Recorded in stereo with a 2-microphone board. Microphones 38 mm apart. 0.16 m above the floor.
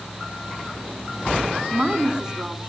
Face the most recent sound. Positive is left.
turn(degrees=-25)  # may be behind; listen again after turning